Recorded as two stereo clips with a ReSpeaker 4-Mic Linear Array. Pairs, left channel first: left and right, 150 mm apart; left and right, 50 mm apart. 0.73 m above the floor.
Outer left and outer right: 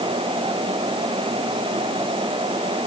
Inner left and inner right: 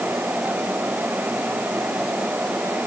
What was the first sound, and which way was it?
Only background noise.